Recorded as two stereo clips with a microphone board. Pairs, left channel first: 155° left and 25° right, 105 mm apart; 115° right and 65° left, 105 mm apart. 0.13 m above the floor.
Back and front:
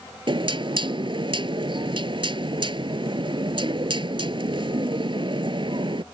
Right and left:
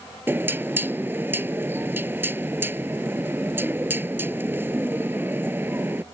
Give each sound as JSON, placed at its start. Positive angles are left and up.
{"t": 0.3, "sound": "knocking", "azimuth_deg": 0}